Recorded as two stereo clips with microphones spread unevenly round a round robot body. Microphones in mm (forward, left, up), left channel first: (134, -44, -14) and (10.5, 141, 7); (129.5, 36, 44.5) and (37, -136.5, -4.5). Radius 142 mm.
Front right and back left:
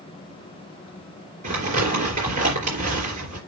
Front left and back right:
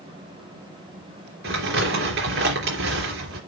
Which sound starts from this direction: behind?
Crumpling, at 1.4 s.